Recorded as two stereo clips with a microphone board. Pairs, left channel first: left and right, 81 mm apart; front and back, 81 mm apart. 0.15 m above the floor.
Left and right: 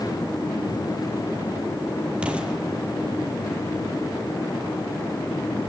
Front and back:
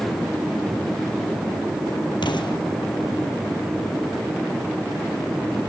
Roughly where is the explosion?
Ahead.